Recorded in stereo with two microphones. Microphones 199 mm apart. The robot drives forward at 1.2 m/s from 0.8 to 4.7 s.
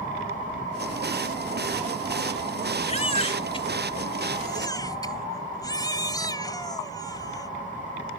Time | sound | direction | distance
2.9 | a baby crying | 30° left (ahead or behind) | ?